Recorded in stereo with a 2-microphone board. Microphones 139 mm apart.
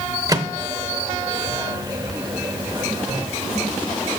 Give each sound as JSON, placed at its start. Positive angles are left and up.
{"t": 0.3, "sound": "a microwave", "side_deg": -25, "distance_m": 1.0}